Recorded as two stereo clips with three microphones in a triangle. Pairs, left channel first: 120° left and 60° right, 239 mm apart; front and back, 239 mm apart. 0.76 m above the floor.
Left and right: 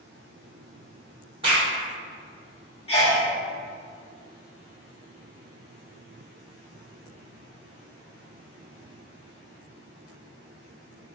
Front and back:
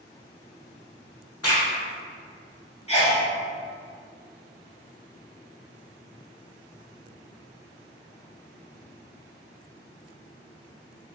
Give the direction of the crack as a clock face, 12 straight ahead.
12 o'clock.